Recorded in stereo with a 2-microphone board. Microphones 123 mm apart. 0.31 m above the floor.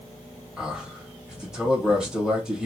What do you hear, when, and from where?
0.6 s a man speaking: 5° right (ahead or behind), 1.6 m